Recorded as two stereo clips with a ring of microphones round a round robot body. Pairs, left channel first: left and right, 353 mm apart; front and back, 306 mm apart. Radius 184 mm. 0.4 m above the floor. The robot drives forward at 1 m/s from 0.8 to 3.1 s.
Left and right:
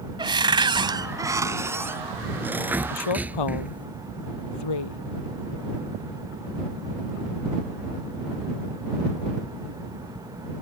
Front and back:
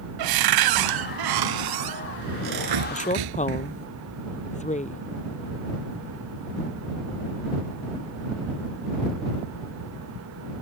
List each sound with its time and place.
0.2 s a cupboard door: 170° right; by 3.9 s 175° right
2.9 s a woman speaking: 65° left; by 5.0 s 70° left